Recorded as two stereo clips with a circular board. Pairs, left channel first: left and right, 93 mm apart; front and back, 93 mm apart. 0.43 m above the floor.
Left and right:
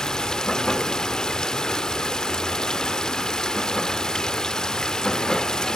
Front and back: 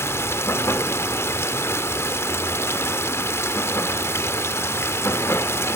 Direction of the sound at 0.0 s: 15° left.